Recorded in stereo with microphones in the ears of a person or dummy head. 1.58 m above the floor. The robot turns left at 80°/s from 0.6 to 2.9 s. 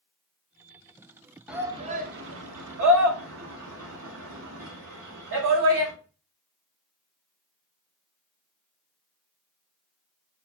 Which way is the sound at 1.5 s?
5° right (ahead or behind).